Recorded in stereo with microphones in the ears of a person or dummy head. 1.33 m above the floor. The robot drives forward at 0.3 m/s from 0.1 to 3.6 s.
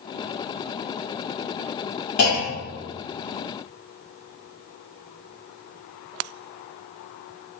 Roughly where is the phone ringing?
No phone ringing in this recording.